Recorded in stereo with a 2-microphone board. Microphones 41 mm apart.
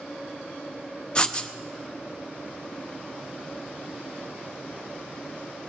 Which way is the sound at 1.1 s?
20° left (ahead or behind).